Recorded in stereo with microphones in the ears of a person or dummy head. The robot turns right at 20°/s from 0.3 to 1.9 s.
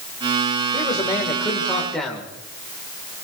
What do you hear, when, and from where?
0.7 s a man speaking: 20° left (ahead or behind), 2.5 m; by 2.3 s 5° right (ahead or behind), 2.5 m